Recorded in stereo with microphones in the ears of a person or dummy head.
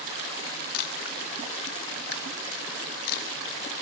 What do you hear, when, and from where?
0.7 s a camera shutter: 55° left (ahead or behind), 2.5 m